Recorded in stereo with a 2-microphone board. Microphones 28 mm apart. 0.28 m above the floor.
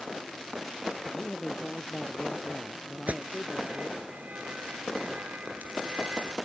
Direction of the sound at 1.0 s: 20° left (ahead or behind).